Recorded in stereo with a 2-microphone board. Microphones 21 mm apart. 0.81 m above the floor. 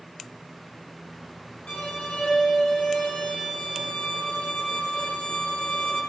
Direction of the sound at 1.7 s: 85° left.